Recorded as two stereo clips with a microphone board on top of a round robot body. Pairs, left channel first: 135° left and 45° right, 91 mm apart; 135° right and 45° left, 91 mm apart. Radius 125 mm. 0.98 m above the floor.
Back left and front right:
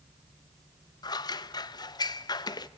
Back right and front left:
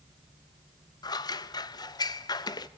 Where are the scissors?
Straight behind, 0.8 m.